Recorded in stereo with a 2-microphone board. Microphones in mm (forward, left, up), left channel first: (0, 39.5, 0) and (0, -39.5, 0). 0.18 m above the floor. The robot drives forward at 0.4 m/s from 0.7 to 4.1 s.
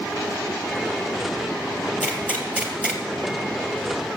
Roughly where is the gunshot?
Centre.